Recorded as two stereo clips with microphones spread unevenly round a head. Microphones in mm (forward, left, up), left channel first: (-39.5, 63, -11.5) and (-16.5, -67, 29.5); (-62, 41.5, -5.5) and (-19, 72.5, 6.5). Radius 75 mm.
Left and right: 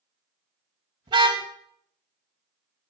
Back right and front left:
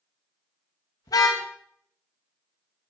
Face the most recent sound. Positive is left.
turn(degrees=-135)